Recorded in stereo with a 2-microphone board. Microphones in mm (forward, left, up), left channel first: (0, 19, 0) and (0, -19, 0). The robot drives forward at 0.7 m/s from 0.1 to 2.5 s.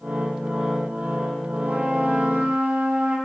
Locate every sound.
1.6 s a trumpet: 60° right (ahead or behind), 3.5 m; by 3.1 s 70° right (ahead or behind), 3 m